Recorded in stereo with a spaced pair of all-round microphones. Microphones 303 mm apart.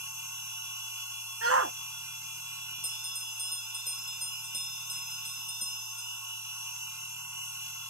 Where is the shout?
50° right (ahead or behind).